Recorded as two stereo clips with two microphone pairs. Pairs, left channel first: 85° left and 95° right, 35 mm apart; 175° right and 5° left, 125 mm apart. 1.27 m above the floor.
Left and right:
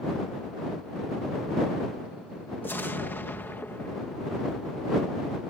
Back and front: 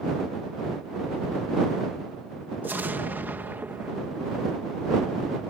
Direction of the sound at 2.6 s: 80° left.